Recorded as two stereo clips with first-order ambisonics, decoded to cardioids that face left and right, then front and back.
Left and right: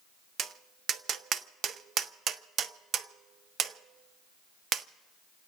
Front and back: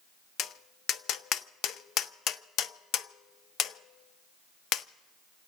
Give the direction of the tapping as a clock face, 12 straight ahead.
1 o'clock.